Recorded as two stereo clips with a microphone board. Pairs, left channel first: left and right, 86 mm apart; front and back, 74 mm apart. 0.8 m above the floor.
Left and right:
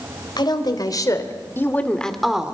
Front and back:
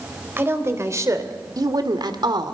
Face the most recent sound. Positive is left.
turn(degrees=-170)